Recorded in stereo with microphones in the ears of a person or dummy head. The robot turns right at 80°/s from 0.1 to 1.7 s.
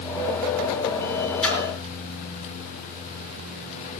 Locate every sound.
1.4 s a splash: 5° left (ahead or behind), 5.5 m; by 1.6 s 20° left (ahead or behind), 5.5 m